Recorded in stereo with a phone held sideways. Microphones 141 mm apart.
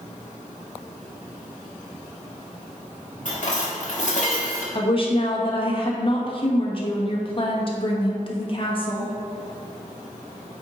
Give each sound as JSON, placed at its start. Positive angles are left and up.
{"t": 3.2, "sound": "dishes clattering", "side_deg": 60, "distance_m": 1.5}
{"t": 4.8, "sound": "a woman speaking", "side_deg": 40, "distance_m": 1.2}